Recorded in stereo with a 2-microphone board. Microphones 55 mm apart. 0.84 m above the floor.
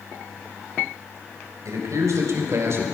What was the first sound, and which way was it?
A man speaking, 80° right.